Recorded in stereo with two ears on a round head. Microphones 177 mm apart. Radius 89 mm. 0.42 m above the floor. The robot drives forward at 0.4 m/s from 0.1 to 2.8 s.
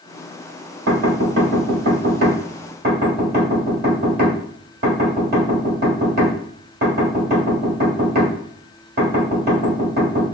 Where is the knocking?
60° right (ahead or behind), 1.7 m; by 10.2 s 50° right (ahead or behind), 1.9 m.